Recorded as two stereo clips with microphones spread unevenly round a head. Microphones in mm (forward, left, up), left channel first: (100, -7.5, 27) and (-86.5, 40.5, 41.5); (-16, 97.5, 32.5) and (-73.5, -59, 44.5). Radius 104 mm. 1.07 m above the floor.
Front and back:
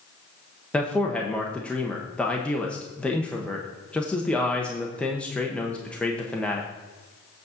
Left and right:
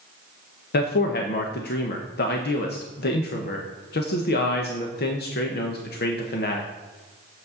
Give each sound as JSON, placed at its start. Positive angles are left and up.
{"t": 0.7, "sound": "a man speaking", "azimuth_deg": 70, "distance_m": 1.0}